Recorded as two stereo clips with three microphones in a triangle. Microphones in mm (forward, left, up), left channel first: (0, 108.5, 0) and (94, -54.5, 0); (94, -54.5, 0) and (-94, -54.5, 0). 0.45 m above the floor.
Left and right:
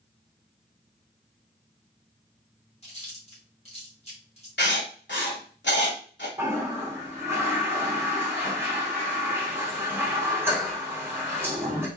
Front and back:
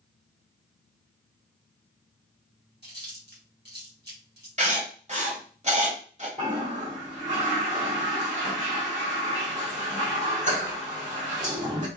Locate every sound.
2.8 s chewing: 170° left, 1.9 m
4.6 s writing: 130° left, 1.1 m
6.4 s a toilet flushing: 135° right, 1.6 m